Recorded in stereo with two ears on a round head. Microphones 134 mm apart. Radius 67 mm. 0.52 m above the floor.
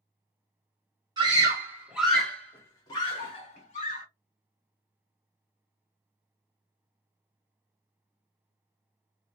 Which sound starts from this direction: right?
A scream, at 1.2 s.